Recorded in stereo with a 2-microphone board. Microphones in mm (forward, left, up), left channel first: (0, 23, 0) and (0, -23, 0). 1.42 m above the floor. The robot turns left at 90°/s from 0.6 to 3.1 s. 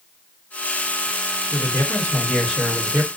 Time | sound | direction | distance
1.5 | a man speaking | 90° left | 1.1 m